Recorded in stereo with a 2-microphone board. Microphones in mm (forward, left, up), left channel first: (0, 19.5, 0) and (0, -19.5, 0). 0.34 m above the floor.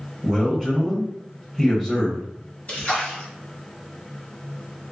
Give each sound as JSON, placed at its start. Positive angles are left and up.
{"t": 0.2, "sound": "a man speaking", "side_deg": 10, "distance_m": 1.8}
{"t": 2.7, "sound": "a splash", "side_deg": 35, "distance_m": 1.6}